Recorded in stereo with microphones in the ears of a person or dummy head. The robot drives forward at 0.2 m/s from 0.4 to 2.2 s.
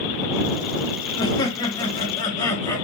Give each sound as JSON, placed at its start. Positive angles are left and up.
{"t": 1.2, "sound": "laughter", "side_deg": 25, "distance_m": 0.6}